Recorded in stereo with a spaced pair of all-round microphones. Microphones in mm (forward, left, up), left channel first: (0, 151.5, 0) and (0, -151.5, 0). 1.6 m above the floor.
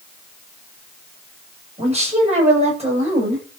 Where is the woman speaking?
20° right (ahead or behind), 9 m.